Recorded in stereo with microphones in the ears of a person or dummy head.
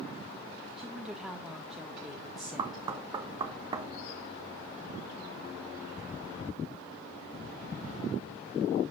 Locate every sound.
0.8 s a woman speaking: centre (ahead or behind), 1.7 m
2.6 s knocking: 20° right (ahead or behind), 0.9 m